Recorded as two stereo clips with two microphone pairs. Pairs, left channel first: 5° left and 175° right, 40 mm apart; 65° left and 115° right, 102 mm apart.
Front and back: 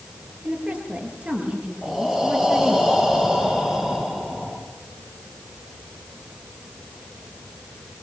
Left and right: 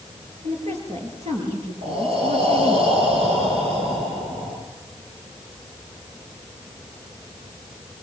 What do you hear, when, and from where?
0.4 s a woman speaking: 120° right, 6.5 m; by 2.8 s 105° right, 5.5 m
1.8 s breathing: 95° right, 7 m